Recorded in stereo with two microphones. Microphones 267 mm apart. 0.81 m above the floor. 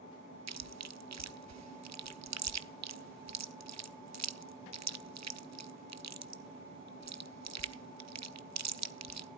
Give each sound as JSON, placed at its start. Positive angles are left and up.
{"t": 0.5, "sound": "chewing", "side_deg": -80, "distance_m": 0.5}